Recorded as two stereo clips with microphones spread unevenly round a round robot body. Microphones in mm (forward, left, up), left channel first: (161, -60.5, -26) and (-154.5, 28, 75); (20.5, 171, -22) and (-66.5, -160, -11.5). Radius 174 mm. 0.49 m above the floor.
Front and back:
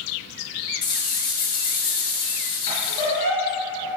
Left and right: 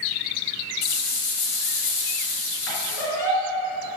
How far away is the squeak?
About 2.5 m.